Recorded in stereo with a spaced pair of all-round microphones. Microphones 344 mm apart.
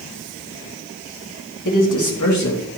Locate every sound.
1.6 s a man speaking: 65° left (ahead or behind), 1.8 m; by 2.8 s 45° left (ahead or behind), 1.9 m